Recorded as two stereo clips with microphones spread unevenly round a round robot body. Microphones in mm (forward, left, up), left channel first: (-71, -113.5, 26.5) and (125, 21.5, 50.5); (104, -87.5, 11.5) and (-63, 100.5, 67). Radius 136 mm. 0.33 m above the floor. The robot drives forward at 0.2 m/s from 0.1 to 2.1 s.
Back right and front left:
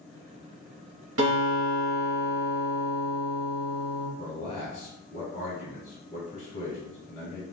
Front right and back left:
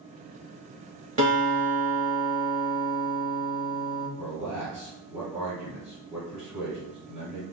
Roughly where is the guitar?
Left.